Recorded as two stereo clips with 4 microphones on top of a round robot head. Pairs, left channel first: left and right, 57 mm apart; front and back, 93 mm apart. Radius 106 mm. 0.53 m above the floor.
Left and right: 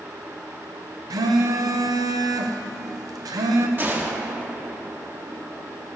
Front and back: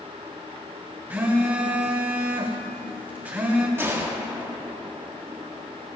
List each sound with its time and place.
1.1 s a phone buzzing: 105° right, 1.0 m
3.8 s a gunshot: 125° right, 1.7 m